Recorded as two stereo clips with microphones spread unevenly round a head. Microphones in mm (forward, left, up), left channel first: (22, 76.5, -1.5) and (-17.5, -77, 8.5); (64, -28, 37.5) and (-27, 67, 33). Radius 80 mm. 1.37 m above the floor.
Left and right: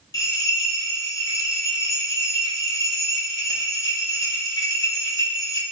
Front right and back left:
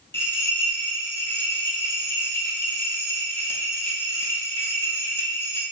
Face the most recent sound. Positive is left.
turn(degrees=15)